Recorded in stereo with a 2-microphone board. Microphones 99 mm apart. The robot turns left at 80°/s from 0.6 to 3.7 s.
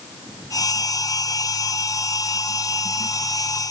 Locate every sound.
Only background noise.